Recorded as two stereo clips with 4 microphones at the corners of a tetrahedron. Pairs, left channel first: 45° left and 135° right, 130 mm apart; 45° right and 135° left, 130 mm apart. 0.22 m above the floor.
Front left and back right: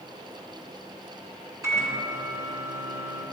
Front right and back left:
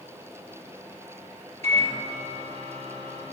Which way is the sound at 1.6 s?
160° left.